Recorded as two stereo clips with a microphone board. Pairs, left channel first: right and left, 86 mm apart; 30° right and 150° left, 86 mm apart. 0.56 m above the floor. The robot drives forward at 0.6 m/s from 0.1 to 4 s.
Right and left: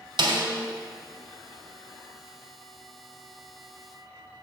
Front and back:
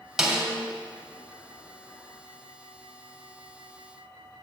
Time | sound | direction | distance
0.2 | a snare drum | 65° left | 1.3 m